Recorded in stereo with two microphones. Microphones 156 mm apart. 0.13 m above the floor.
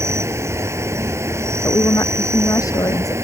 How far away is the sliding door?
I don't hear a sliding door.